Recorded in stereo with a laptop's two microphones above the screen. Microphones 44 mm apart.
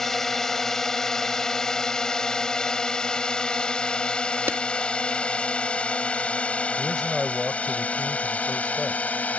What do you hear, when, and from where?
0.0 s a drone: 10° left (ahead or behind); by 9.4 s 35° left (ahead or behind)
4.5 s a clap: 70° right (ahead or behind)
6.8 s a man speaking: 5° left (ahead or behind)